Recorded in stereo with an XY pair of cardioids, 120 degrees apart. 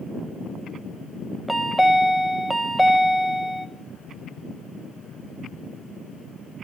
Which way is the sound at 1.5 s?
5° right.